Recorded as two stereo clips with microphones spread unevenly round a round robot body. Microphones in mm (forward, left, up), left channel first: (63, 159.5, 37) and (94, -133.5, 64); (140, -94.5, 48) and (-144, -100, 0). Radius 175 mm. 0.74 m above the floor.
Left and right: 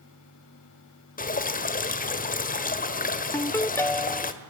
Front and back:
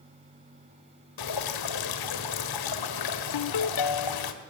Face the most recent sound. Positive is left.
turn(degrees=15)